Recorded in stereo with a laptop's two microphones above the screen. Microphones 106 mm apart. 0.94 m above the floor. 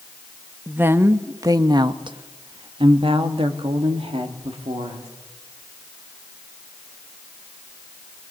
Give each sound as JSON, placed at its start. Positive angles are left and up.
{"t": 0.7, "sound": "a woman speaking", "side_deg": -20, "distance_m": 1.2}